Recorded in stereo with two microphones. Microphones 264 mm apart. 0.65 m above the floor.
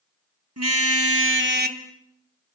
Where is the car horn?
70° right (ahead or behind), 3 m; by 1.8 s 30° right (ahead or behind), 2.0 m.